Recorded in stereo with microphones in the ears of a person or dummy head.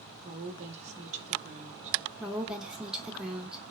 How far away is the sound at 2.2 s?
About 0.7 m.